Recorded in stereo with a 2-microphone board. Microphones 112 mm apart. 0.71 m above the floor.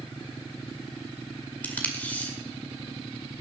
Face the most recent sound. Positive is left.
turn(degrees=15)  # may be behind; listen again after turning